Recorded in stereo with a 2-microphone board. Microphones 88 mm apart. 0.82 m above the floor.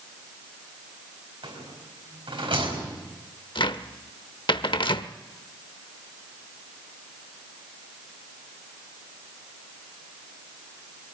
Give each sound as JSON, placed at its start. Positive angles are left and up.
{"t": 1.4, "sound": "a rattle", "side_deg": -75, "distance_m": 5.0}
{"t": 3.5, "sound": "a cupboard door", "side_deg": 65, "distance_m": 0.8}